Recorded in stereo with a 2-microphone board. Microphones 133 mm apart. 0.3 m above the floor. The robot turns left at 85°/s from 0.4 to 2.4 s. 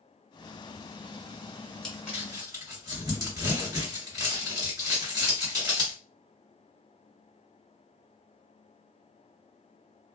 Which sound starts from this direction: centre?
Crumpling, at 1.8 s.